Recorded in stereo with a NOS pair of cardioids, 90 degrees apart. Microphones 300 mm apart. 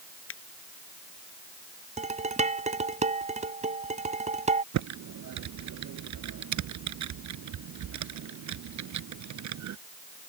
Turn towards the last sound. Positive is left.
turn(degrees=-70)